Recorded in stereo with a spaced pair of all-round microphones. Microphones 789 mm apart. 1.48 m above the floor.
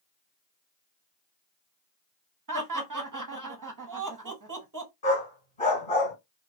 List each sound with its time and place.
2.5 s laughter: 25° right (ahead or behind), 0.8 m
5.0 s a dog barking: 35° left (ahead or behind), 1.8 m